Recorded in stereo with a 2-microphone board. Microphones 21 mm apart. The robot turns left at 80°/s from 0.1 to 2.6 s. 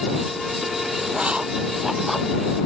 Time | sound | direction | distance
1.1 | writing | 85° right | ?